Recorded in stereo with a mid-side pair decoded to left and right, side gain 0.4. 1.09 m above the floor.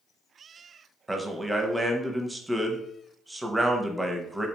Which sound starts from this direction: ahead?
A man speaking, at 1.1 s.